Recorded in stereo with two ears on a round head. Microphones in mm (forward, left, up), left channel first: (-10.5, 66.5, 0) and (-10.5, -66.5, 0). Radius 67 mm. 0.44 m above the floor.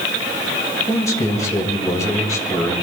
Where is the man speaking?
25° left (ahead or behind), 2 m.